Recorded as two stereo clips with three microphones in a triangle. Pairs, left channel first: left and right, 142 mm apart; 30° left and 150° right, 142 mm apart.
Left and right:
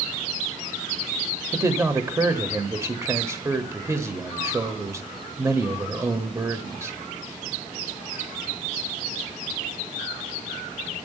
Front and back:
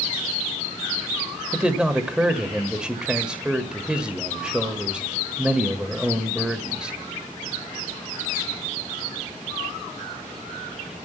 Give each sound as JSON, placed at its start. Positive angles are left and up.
{"t": 1.5, "sound": "a man speaking", "azimuth_deg": -80, "distance_m": 1.2}